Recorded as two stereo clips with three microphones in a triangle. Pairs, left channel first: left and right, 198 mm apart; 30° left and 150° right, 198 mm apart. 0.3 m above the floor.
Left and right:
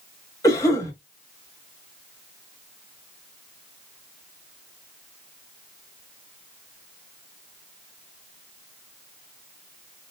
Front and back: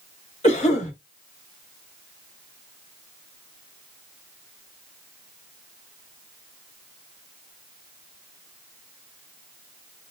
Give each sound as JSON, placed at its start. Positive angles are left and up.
{"t": 0.4, "sound": "a cough", "azimuth_deg": 35, "distance_m": 1.7}